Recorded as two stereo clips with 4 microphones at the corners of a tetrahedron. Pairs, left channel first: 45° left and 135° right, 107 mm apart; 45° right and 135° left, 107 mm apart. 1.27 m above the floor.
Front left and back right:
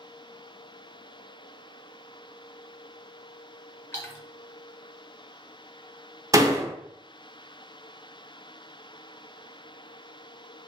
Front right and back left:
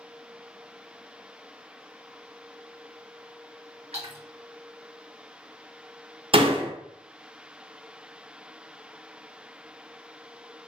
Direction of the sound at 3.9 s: 115° left.